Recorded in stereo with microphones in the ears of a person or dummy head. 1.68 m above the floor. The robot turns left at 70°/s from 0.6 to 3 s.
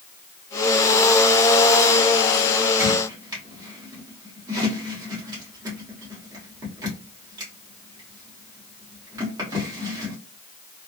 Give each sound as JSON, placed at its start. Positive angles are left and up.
{"t": 2.8, "sound": "a squeak", "side_deg": -5, "distance_m": 1.5}